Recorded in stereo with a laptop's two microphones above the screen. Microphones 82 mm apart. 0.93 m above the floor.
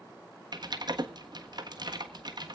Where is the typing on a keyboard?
55° right (ahead or behind), 1.4 m.